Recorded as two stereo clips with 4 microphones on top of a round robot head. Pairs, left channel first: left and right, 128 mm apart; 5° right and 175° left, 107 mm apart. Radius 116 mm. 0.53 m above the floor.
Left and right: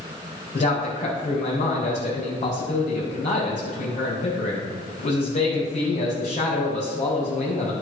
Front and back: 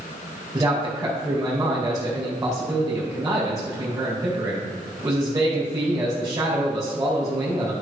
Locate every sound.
0.5 s a man speaking: 115° left, 3 m